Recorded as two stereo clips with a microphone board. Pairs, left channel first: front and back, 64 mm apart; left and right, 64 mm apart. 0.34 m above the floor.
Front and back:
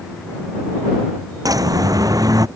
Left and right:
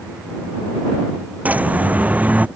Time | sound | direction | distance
1.4 | a bird | 155° right | ?